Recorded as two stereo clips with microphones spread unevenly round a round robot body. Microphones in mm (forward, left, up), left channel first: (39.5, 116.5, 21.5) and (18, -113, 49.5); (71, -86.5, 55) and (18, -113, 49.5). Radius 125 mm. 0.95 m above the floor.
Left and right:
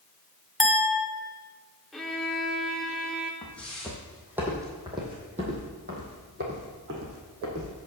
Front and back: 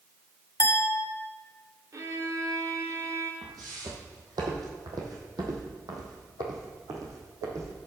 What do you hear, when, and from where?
0.6 s a clink: 5° right, 1.5 m
1.9 s a violin: straight behind, 0.6 m
3.4 s footsteps: 170° left, 1.9 m; by 7.7 s 125° right, 2.5 m